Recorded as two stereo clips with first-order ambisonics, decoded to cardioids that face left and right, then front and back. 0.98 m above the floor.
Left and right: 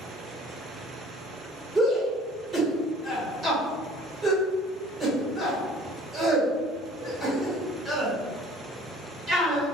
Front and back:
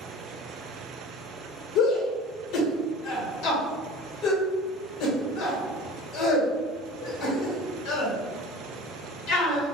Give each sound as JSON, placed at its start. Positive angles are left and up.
{"t": 1.8, "sound": "a shout", "azimuth_deg": -25, "distance_m": 1.6}